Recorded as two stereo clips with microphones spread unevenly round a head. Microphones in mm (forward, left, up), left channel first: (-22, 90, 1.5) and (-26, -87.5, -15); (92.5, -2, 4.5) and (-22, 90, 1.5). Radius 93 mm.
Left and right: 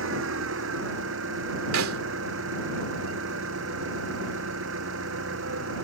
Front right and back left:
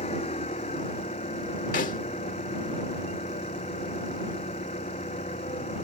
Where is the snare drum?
90° right.